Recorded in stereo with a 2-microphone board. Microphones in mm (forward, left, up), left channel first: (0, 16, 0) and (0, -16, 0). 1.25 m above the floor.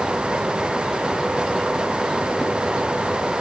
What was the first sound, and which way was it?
Only background noise.